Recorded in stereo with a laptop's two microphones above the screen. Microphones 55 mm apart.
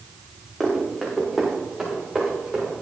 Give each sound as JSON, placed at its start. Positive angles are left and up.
{"t": 0.6, "sound": "running footsteps", "side_deg": -5, "distance_m": 5.0}